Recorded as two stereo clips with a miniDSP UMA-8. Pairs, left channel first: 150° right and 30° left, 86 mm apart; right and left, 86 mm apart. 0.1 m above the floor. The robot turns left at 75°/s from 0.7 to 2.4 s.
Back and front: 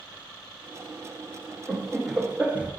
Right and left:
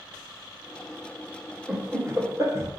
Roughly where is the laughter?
Behind left.